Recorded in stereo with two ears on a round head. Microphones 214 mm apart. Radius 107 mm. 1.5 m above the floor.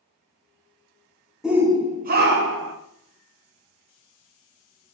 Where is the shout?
Centre (ahead or behind), 0.6 m; by 2.8 s 55° right (ahead or behind), 0.7 m.